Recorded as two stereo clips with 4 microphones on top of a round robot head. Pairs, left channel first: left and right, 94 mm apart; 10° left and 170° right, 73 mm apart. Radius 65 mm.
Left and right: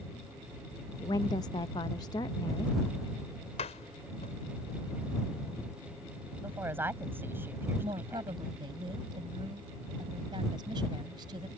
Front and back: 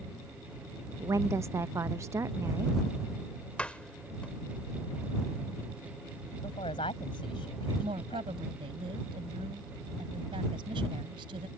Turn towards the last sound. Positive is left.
turn(degrees=-145)